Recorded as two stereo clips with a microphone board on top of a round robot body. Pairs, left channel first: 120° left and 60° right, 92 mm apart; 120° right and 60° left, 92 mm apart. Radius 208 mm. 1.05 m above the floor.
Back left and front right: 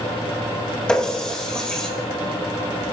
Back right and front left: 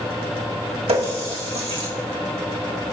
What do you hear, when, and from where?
0.9 s a running tap: 40° left, 2.5 m